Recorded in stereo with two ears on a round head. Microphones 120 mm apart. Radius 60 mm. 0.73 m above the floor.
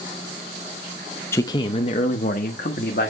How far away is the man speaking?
About 0.6 m.